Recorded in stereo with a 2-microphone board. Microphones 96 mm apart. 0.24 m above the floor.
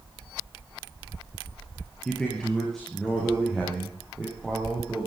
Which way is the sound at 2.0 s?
10° left (ahead or behind).